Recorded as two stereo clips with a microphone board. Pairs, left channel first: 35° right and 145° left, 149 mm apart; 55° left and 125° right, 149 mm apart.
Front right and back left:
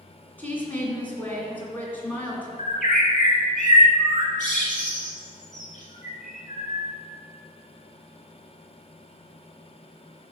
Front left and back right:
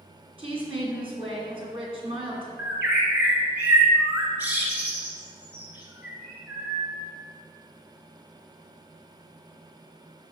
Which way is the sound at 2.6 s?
45° right.